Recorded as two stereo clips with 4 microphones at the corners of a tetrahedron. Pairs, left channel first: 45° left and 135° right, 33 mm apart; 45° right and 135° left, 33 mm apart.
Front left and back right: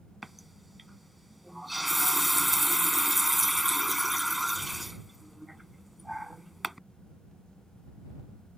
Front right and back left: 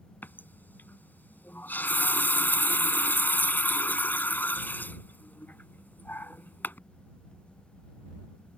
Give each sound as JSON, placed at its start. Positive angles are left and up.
{"t": 0.2, "sound": "a running tap", "azimuth_deg": -50}